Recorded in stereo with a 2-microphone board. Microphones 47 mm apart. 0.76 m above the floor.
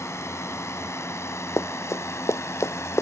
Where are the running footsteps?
85° left.